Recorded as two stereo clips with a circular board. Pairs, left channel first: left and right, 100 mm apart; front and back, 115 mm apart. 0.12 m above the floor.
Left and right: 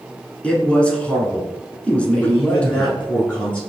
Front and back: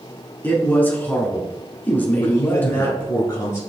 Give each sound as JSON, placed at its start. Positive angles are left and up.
{"t": 0.4, "sound": "a man speaking", "azimuth_deg": 35, "distance_m": 1.1}
{"t": 2.2, "sound": "a man speaking", "azimuth_deg": 20, "distance_m": 1.3}